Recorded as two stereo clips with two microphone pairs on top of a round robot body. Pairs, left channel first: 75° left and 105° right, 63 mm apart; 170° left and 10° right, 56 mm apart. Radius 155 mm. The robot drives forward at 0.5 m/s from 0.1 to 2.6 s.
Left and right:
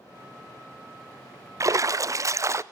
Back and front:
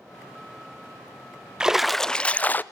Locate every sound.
1.6 s a splash: 90° right, 0.7 m; by 2.6 s 135° right, 0.8 m